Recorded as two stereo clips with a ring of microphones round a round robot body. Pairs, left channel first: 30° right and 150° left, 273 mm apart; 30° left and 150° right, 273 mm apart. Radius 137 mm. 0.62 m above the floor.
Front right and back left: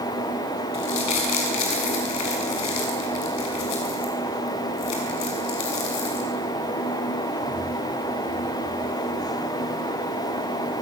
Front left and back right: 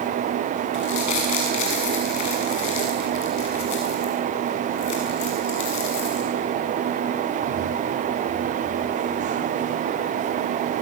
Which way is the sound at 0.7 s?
Straight ahead.